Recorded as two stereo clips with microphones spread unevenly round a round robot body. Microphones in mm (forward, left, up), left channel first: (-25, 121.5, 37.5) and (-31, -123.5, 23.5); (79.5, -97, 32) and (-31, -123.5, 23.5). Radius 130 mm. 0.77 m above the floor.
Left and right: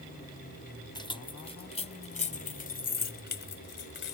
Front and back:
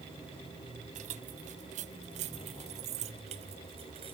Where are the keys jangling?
160° left; by 4.1 s 130° left.